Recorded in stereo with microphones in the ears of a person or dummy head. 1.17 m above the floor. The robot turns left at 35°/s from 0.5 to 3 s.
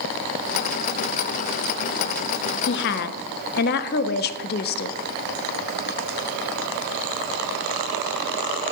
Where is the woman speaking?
55° left (ahead or behind), 0.8 m; by 5.0 s 50° left (ahead or behind), 0.8 m.